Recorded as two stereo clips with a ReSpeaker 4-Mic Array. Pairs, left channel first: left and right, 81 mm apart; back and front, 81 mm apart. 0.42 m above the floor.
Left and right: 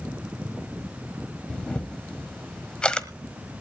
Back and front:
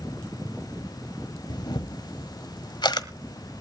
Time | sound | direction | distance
1.5 | a camera shutter | 170° left | 1.3 m